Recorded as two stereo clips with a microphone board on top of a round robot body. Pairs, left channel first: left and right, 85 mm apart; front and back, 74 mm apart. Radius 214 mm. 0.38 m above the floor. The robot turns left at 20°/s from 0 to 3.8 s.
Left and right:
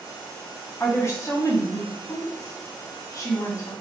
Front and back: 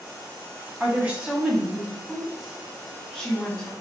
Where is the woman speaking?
125° left, 1.4 m; by 3.7 s 65° left, 1.4 m.